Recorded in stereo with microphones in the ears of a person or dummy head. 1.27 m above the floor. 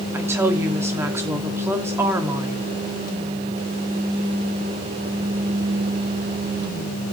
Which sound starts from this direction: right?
A woman speaking, at 0.1 s.